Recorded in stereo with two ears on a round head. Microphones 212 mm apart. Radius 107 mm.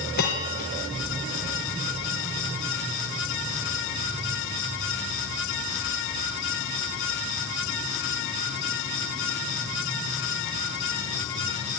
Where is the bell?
40° left (ahead or behind), 3.5 m.